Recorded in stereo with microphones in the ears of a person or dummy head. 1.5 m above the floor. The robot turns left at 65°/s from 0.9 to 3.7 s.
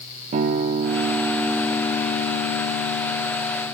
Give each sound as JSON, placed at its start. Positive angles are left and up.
{"t": 0.3, "sound": "a guitar", "azimuth_deg": -145, "distance_m": 0.6}